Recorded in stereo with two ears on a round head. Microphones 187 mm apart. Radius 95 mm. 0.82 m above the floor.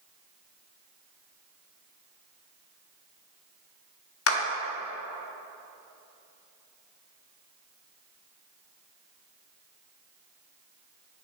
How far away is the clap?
About 1.1 m.